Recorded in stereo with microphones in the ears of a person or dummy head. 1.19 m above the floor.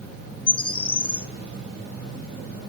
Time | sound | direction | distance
0.5 | a bird | 30° left (ahead or behind) | 1.4 m